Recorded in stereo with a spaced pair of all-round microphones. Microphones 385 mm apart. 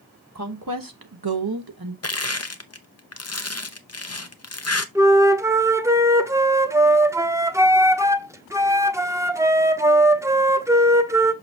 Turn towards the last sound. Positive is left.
turn(degrees=-10)  # may be behind; listen again after turning